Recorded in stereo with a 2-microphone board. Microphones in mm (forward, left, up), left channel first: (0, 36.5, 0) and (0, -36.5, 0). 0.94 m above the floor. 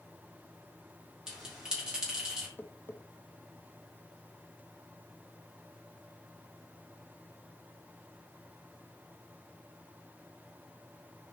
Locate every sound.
1.3 s a bell: 10° right (ahead or behind), 3 m
2.6 s tapping: 20° left (ahead or behind), 0.9 m